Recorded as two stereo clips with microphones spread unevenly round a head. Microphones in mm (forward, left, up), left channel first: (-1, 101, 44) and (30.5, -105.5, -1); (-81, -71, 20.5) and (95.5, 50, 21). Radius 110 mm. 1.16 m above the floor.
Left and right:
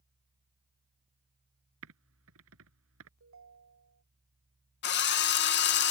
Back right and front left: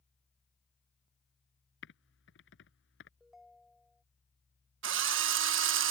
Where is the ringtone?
55° right.